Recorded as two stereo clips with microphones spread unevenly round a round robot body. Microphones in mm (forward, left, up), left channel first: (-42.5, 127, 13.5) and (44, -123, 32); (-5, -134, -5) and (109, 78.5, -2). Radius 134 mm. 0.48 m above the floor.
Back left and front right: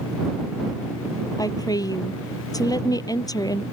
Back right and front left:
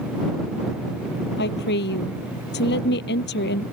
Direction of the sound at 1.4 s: 175° right.